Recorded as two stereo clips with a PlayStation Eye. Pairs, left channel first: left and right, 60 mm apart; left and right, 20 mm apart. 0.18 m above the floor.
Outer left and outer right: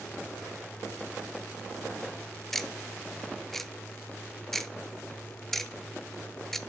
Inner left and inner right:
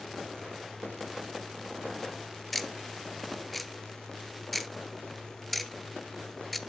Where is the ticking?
5° left (ahead or behind), 0.5 m.